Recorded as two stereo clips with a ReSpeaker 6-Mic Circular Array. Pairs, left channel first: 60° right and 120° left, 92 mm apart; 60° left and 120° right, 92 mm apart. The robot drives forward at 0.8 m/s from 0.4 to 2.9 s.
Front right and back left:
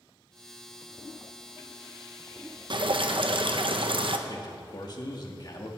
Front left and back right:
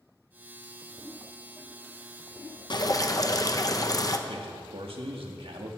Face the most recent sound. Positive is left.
turn(degrees=-105)